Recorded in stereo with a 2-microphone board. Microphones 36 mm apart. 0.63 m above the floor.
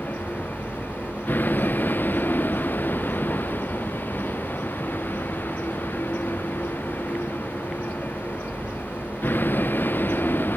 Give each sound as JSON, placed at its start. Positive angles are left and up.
{"t": 0.0, "sound": "a vehicle", "side_deg": 60}